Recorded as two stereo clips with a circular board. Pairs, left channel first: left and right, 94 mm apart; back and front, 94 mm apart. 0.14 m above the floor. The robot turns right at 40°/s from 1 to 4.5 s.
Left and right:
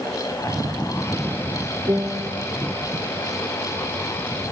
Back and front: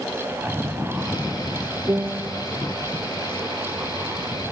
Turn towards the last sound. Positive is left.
turn(degrees=35)